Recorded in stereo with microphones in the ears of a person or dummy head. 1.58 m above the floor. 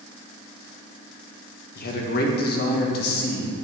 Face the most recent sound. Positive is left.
turn(degrees=60)  # may be behind; listen again after turning